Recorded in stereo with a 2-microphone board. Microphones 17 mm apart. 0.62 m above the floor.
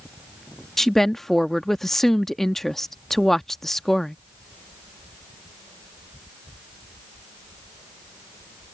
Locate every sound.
0.8 s a woman speaking: 15° left (ahead or behind)